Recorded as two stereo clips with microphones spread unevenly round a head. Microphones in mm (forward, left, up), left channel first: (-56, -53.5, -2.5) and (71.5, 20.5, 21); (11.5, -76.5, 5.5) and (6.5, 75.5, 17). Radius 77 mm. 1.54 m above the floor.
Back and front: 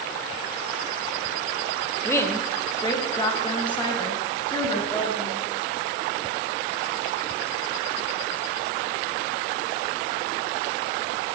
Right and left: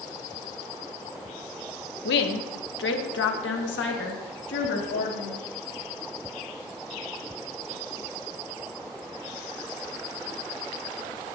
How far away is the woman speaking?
About 1.3 m.